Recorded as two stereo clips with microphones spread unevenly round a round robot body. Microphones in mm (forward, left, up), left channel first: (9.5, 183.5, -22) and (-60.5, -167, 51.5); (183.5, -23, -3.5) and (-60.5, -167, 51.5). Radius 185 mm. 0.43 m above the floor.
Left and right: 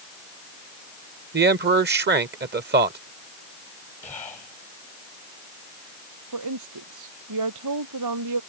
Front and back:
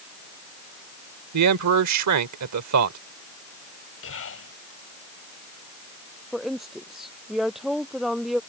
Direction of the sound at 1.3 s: 165° right.